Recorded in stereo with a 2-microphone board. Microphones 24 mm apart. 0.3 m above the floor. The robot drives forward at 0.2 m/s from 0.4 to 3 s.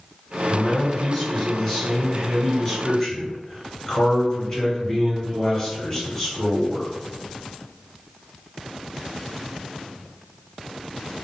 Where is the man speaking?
20° left (ahead or behind), 2.0 m; by 6.9 s 25° left (ahead or behind), 1.7 m.